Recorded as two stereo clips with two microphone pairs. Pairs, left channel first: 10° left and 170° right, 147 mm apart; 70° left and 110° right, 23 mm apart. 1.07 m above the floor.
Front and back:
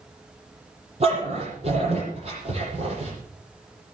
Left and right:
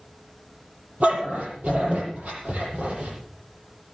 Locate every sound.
1.0 s a dog barking: 125° right, 8.5 m